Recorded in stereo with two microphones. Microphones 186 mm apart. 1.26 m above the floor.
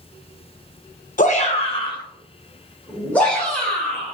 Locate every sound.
1.2 s a shout: 45° left (ahead or behind), 0.8 m; by 4.1 s 5° left (ahead or behind), 2.5 m